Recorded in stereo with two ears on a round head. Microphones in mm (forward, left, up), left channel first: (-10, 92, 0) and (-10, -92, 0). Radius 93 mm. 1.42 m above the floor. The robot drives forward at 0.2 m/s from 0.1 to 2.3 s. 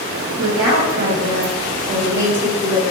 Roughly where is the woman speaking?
Right.